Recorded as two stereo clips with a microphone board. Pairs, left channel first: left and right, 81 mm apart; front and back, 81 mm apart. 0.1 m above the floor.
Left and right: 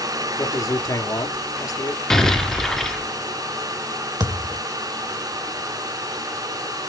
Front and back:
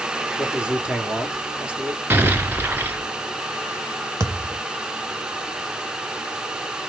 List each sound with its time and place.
0.4 s a man speaking: 105° left, 1.6 m
2.1 s an explosion: 165° left, 1.1 m
4.2 s a thud: 125° right, 1.4 m